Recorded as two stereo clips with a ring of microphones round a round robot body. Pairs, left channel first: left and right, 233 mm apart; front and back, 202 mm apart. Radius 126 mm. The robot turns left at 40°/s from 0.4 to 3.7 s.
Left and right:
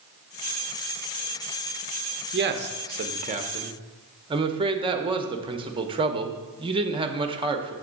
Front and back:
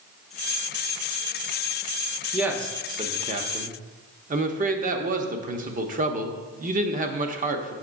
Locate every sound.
2.3 s a man speaking: 95° right, 0.8 m; by 7.7 s 150° right, 0.8 m